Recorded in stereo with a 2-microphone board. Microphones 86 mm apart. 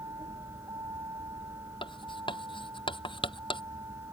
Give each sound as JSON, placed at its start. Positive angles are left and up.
{"t": 0.0, "sound": "a vehicle", "side_deg": -45}
{"t": 1.8, "sound": "writing", "side_deg": 80}